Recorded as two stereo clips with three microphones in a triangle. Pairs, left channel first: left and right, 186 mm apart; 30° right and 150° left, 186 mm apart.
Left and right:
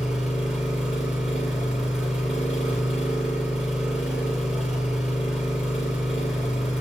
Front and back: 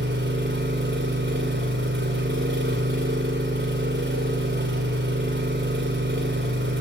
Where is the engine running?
175° right, 2.5 m.